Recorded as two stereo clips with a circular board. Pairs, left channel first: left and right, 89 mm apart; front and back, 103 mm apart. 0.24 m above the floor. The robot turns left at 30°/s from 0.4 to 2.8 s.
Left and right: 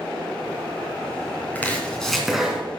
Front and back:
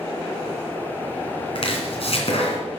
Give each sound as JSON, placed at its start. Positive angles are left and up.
{"t": 1.6, "sound": "chopping", "azimuth_deg": 20, "distance_m": 2.5}